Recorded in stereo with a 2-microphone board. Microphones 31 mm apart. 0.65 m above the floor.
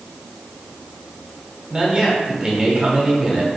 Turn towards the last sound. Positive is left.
turn(degrees=-25)  # may be behind; listen again after turning